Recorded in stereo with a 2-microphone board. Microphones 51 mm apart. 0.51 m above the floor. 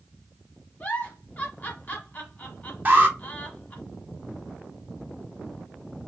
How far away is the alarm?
About 2 m.